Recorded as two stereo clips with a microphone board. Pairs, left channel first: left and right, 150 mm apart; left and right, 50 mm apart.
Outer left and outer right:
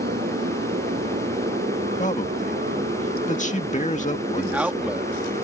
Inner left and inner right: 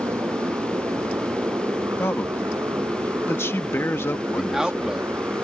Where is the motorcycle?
80° right; by 5.4 s 70° right (ahead or behind).